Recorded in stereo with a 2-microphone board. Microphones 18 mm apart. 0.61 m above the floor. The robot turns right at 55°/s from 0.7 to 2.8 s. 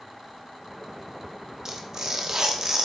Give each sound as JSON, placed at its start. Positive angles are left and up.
{"t": 1.6, "sound": "tearing paper", "azimuth_deg": -115, "distance_m": 1.1}